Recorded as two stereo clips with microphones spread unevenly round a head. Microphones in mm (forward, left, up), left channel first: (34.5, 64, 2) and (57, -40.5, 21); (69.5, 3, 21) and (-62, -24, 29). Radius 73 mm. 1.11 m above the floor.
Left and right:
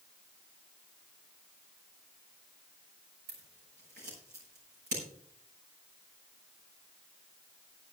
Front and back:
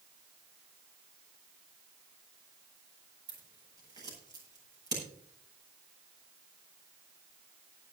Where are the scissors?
105° right, 9 m.